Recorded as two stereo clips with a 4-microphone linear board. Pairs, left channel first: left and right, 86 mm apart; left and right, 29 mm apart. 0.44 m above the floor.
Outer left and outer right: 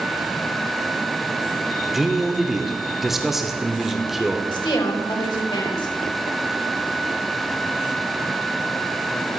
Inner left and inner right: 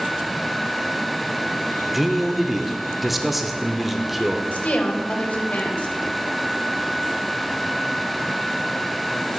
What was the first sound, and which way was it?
A man speaking, 5° right (ahead or behind).